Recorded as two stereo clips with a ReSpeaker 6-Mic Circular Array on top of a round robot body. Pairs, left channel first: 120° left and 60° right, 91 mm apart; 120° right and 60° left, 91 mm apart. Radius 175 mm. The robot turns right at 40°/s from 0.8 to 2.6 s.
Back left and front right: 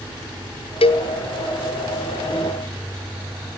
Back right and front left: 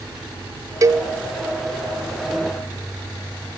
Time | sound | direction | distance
0.8 | a cowbell | 110° left | 1.1 m